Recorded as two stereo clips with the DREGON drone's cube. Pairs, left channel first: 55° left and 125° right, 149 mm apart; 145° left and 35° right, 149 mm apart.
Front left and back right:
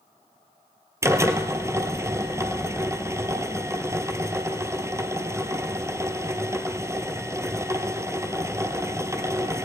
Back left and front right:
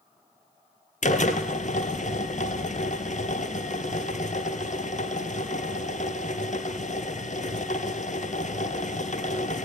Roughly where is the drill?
Behind.